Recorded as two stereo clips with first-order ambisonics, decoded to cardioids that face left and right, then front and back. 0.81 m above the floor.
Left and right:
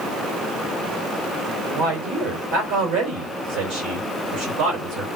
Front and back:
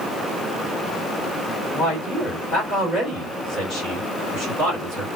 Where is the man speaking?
75° right, 1.8 m.